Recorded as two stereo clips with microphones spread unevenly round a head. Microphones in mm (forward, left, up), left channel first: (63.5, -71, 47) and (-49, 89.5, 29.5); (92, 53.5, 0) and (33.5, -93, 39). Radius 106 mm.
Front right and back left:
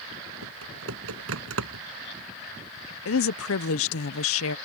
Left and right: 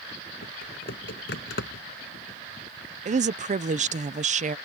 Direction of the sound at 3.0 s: 75° right.